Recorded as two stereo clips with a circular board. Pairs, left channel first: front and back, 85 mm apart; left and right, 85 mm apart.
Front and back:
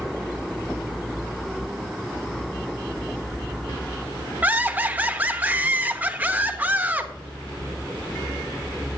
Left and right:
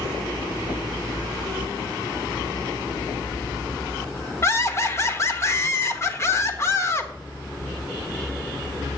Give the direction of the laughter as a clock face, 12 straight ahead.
8 o'clock.